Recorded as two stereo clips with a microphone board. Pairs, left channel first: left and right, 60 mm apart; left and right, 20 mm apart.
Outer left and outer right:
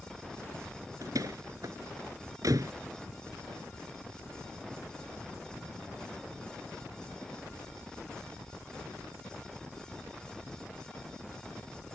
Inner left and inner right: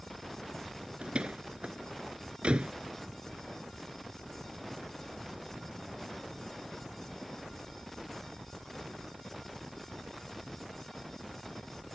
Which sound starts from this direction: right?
A door slam, at 1.0 s.